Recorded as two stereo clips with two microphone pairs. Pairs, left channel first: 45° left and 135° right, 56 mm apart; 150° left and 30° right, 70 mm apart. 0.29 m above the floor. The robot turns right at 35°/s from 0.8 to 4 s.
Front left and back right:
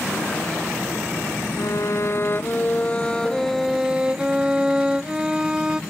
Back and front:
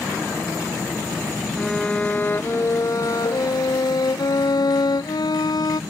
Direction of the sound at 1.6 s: 65° left.